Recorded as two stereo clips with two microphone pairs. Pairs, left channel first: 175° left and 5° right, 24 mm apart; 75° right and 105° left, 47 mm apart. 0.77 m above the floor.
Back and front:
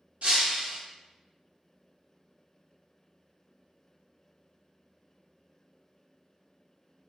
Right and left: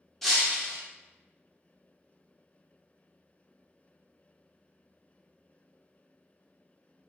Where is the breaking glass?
10° left, 0.8 m.